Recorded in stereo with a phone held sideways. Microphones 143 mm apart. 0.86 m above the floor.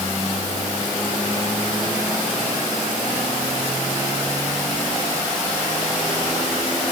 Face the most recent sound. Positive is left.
No sound to turn to.